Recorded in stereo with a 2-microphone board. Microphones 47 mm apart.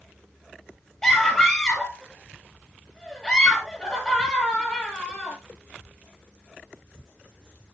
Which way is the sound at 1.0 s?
20° left (ahead or behind).